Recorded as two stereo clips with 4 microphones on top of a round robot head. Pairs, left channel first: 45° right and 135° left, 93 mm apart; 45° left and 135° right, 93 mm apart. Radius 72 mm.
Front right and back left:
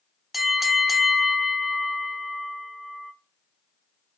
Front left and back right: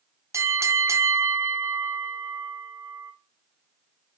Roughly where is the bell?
Behind right.